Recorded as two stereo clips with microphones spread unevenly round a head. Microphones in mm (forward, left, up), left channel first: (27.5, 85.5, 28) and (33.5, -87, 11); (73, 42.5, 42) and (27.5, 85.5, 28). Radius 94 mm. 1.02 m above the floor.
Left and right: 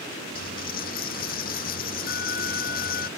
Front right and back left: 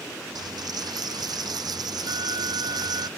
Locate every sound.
0.3 s a dropped coin: 140° left